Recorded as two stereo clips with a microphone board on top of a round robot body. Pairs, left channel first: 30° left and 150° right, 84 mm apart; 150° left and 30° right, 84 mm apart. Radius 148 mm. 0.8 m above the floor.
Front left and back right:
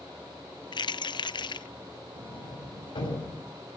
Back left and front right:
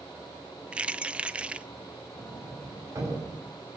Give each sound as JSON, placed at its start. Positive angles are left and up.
{"t": 0.7, "sound": "keys jangling", "azimuth_deg": 45, "distance_m": 0.6}
{"t": 2.2, "sound": "a sliding door", "azimuth_deg": 20, "distance_m": 7.0}